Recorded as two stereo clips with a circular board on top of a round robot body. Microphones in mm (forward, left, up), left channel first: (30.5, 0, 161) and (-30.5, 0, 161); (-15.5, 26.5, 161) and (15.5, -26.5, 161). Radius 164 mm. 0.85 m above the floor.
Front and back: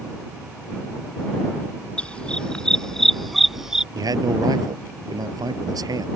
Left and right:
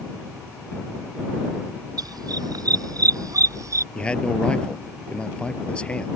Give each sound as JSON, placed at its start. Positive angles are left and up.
{"t": 2.0, "sound": "a dog barking", "azimuth_deg": -70}
{"t": 4.0, "sound": "a man speaking", "azimuth_deg": -165}